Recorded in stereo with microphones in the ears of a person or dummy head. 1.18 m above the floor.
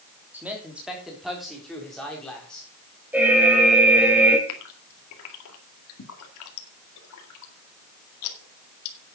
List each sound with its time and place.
0.3 s a man speaking: 10° right (ahead or behind), 3.5 m; by 2.7 s 5° left (ahead or behind), 4.5 m
3.1 s an alarm: 5° right (ahead or behind), 2.5 m
4.5 s a gasp: 80° left, 2 m